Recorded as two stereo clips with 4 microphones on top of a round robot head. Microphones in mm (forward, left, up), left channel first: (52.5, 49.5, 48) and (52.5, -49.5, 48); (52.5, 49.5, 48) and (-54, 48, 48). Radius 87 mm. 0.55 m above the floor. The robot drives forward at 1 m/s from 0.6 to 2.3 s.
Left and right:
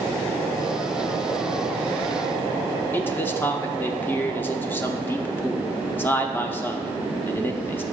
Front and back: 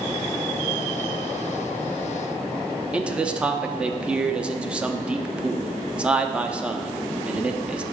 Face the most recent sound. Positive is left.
turn(degrees=120)